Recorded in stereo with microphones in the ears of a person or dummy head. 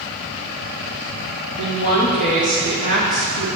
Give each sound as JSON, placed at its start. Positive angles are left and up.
{"t": 1.6, "sound": "a woman speaking", "side_deg": 65, "distance_m": 2.5}